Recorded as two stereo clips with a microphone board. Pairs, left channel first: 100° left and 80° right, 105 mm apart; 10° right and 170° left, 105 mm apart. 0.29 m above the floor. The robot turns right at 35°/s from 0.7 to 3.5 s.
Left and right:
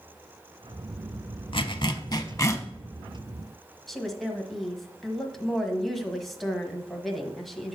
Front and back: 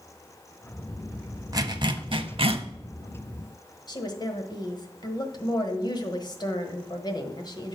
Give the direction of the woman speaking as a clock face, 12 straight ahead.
12 o'clock.